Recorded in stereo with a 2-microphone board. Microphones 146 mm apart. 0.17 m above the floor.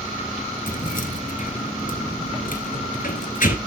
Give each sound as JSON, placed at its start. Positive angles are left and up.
{"t": 0.7, "sound": "keys jangling", "side_deg": 65, "distance_m": 1.8}